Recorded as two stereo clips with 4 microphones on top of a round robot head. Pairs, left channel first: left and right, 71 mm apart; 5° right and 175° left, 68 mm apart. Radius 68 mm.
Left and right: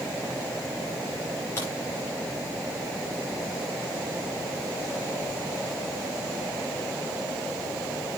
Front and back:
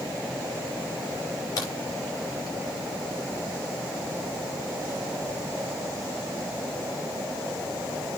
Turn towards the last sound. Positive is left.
turn(degrees=30)